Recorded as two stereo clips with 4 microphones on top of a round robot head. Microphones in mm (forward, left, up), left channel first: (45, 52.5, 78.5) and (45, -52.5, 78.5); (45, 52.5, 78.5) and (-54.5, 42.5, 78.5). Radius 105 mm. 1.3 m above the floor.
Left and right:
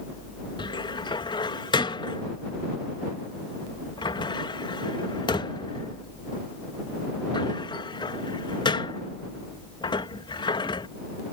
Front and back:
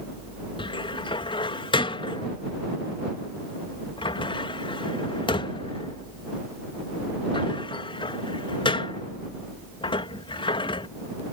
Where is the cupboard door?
45° left.